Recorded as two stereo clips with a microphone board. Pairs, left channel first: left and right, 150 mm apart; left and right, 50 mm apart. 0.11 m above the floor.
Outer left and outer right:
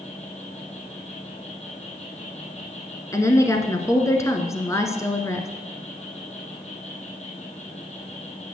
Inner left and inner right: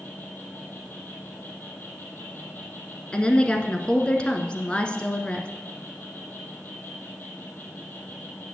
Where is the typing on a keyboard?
No typing on a keyboard in this recording.